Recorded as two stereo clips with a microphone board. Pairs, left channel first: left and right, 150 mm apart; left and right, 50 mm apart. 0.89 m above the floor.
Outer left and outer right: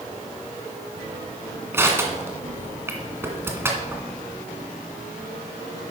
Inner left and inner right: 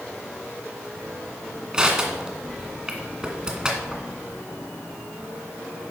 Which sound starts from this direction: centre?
Crushing, at 1.7 s.